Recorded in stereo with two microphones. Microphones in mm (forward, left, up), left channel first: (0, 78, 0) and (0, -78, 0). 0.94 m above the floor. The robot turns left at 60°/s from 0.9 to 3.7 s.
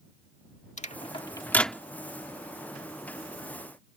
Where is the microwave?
50° left (ahead or behind); by 1.8 s 5° right (ahead or behind).